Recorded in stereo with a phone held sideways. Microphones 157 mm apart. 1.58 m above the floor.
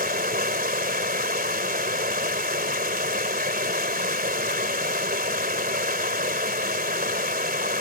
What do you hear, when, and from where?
0.0 s running water: 70° right (ahead or behind)